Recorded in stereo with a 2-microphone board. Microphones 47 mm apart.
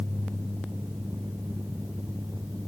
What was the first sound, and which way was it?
Only background noise.